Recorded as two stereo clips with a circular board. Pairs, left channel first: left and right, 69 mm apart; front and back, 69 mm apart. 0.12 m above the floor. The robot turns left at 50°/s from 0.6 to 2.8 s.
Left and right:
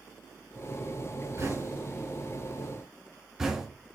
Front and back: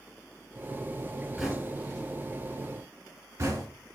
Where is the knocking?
95° right, 1.1 m; by 3.7 s 165° right, 1.1 m.